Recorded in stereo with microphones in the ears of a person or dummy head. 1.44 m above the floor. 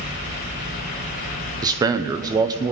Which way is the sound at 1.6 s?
20° right (ahead or behind).